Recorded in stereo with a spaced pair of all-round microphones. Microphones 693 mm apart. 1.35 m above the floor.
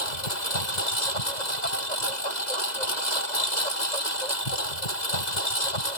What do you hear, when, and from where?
0.0 s a lawn mower: 80° left